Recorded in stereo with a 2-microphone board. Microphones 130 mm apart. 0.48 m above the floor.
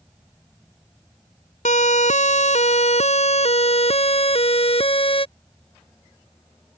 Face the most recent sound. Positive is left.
turn(degrees=45)  # may be behind; listen again after turning